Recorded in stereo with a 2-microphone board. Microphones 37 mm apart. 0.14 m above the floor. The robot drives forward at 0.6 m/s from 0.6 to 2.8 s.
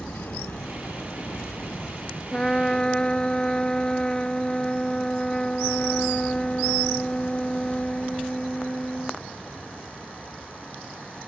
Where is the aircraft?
65° left (ahead or behind); by 11.3 s 25° left (ahead or behind).